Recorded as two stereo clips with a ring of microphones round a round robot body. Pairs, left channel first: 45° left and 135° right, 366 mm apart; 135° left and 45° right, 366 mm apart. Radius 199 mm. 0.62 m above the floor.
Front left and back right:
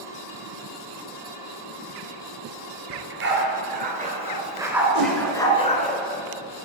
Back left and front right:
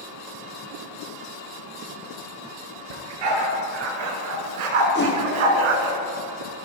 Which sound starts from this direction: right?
A dog barking, at 2.9 s.